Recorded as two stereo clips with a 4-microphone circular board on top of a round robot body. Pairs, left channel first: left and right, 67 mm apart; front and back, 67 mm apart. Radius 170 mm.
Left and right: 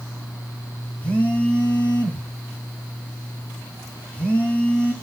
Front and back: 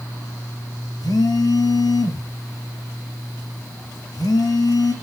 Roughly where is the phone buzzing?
Ahead.